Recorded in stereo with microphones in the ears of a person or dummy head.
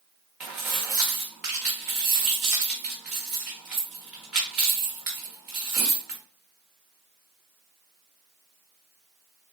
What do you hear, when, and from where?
0.4 s keys jangling: 5° right (ahead or behind), 1.1 m